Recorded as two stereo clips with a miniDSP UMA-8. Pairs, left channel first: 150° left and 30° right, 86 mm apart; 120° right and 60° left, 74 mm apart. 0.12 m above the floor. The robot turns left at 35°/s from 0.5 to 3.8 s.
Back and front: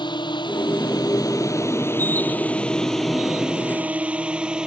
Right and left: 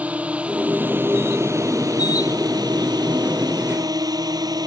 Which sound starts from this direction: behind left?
A drone, at 0.0 s.